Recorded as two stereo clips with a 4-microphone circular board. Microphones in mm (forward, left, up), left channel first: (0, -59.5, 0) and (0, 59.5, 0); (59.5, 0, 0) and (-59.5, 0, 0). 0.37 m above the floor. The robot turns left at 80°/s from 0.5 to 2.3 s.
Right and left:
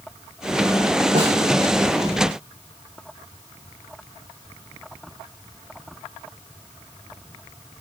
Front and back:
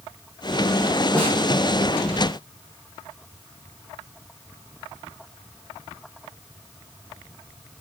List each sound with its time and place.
1.1 s a snare drum: 80° left, 9.5 m; by 1.4 s 60° left, 9.5 m